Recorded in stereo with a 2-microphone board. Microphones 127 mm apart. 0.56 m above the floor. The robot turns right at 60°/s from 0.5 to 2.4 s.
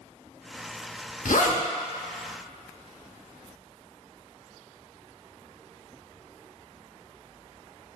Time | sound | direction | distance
1.2 | a zipper | 80° left | 0.5 m